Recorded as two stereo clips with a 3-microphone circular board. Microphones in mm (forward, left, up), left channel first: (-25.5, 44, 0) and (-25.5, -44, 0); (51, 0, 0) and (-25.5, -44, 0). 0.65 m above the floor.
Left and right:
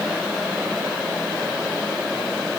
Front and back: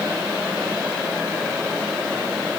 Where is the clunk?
No clunk in this recording.